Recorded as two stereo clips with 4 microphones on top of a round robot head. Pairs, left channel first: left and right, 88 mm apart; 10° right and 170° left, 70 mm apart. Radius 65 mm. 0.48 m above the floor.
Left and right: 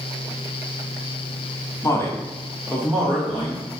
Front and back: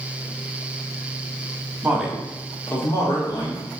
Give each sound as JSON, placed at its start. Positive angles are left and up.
{"t": 1.8, "sound": "a man speaking", "azimuth_deg": 115, "distance_m": 1.1}